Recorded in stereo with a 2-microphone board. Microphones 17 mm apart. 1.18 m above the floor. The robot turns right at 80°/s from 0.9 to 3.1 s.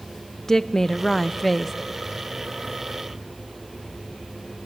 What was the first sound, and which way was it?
A woman speaking, 20° left (ahead or behind).